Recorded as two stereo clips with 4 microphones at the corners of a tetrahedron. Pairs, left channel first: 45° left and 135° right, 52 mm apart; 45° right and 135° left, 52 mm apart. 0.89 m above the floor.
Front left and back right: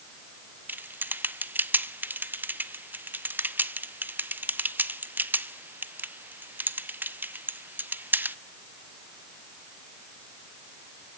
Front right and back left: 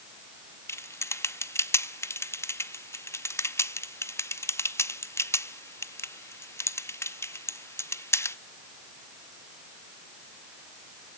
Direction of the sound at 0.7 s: 80° right.